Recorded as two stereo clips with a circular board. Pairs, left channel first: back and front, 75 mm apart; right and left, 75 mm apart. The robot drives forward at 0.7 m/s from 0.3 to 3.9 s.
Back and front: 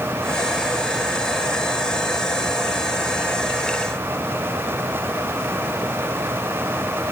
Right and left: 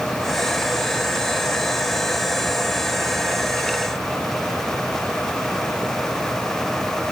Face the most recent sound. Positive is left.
No sound to turn to.